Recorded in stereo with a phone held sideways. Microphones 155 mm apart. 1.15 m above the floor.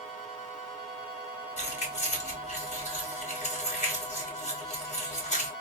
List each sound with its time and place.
1.6 s keys jangling: 50° left (ahead or behind), 1.2 m